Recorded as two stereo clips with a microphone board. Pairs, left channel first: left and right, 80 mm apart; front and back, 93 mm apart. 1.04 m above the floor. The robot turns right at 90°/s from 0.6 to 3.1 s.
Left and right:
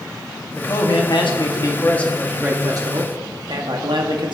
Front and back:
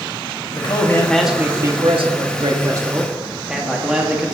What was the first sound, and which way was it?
A man speaking, 35° left.